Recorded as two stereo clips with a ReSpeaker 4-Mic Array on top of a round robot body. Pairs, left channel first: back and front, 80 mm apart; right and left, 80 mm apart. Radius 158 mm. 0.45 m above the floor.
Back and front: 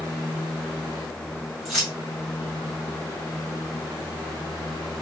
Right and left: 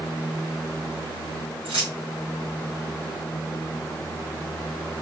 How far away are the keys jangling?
About 2.0 m.